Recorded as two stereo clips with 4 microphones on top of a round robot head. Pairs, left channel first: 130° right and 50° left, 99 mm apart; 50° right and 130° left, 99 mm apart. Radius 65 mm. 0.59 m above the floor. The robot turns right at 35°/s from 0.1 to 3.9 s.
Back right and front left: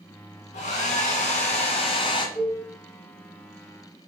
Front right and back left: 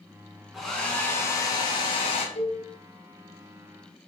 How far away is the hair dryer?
About 1.4 m.